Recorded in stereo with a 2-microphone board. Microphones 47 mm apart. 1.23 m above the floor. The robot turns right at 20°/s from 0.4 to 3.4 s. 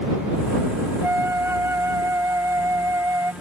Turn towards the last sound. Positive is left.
turn(degrees=-80)